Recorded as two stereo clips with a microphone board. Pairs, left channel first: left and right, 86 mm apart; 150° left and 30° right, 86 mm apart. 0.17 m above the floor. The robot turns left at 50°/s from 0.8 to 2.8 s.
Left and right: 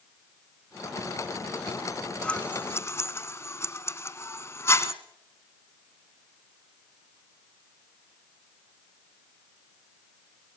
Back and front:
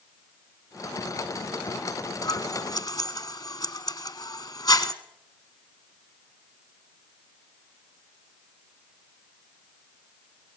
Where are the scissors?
160° left, 1.2 m; by 4.9 s 135° left, 1.2 m.